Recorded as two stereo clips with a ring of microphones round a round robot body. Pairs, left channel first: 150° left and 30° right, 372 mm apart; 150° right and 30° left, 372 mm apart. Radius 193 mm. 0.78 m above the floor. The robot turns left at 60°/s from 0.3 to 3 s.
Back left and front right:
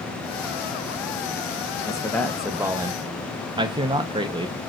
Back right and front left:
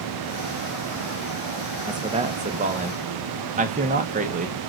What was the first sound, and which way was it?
A man speaking, 90° left.